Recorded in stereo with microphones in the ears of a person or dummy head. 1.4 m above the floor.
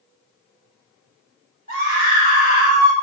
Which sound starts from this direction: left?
A scream, at 1.7 s.